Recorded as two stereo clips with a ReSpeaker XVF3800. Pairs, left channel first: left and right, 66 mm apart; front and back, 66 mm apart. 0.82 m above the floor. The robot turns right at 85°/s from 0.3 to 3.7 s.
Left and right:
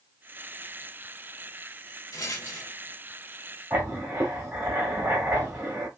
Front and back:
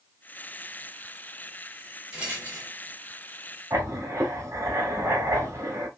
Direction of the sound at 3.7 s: 140° right.